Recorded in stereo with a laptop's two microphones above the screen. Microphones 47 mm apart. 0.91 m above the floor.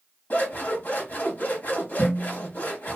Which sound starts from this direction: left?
Scissors, at 0.3 s.